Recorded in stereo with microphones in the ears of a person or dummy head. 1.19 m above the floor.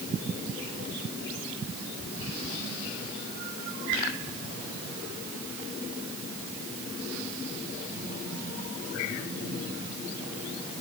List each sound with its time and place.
Only background noise.